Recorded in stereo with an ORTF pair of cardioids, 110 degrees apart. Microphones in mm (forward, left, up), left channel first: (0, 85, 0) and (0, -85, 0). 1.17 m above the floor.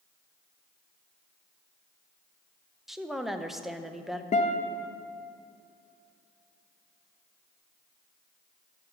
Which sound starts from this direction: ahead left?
A guitar, at 4.3 s.